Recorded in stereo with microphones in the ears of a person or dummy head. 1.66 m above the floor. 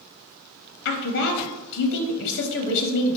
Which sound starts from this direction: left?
A woman speaking, at 0.8 s.